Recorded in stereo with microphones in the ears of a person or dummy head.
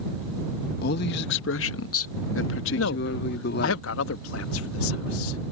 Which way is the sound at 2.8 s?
75° left (ahead or behind).